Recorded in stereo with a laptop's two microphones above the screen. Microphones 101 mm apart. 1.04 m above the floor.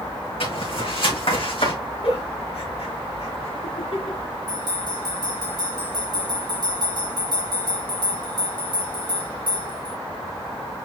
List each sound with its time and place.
0.4 s footsteps: 65° left (ahead or behind), 4 m
2.0 s a giggle: 75° left (ahead or behind), 3.5 m
4.5 s a bell: 50° right (ahead or behind), 5 m